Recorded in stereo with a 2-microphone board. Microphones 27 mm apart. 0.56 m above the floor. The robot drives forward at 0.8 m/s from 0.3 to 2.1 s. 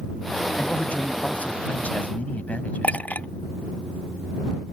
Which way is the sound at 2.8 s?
75° left (ahead or behind).